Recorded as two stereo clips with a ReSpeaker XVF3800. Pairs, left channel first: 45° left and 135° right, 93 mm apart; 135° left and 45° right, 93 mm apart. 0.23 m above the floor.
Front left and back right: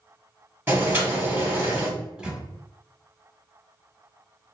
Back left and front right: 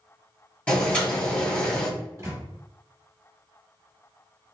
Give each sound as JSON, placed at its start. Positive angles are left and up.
{"t": 0.7, "sound": "boiling", "azimuth_deg": -165, "distance_m": 1.8}
{"t": 2.0, "sound": "a microwave", "azimuth_deg": -65, "distance_m": 1.0}